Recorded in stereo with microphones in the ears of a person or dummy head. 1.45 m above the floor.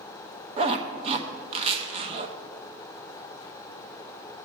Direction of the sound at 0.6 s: 35° right (ahead or behind).